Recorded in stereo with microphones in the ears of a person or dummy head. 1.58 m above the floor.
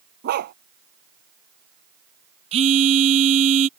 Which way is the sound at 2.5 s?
30° right (ahead or behind).